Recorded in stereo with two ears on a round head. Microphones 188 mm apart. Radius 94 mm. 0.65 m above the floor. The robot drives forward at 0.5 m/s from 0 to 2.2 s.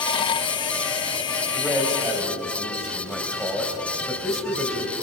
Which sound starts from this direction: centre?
A man speaking, at 1.5 s.